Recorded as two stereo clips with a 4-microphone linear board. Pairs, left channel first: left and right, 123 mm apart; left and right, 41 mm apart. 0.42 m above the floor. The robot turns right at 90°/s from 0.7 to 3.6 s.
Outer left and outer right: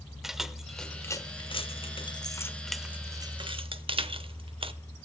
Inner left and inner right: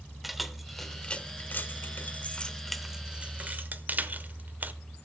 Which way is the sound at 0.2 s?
5° right (ahead or behind).